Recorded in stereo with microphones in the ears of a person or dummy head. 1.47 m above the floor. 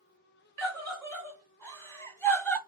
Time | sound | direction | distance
0.6 | a scream | 15° left (ahead or behind) | 2 m